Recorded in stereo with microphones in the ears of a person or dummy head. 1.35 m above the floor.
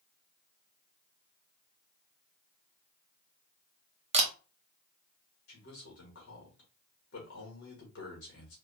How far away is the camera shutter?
About 0.6 m.